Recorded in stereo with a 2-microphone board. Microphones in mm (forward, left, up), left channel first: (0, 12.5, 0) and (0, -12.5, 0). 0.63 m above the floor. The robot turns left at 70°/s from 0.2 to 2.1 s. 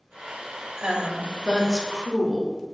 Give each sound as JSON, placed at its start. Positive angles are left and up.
{"t": 0.8, "sound": "a woman speaking", "azimuth_deg": -130, "distance_m": 1.1}